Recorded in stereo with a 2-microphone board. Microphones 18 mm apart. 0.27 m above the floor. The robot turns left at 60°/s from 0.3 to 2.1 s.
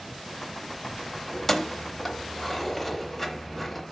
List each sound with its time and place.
1.3 s keys jangling: 25° left (ahead or behind), 0.7 m; by 3.8 s 10° left (ahead or behind), 0.7 m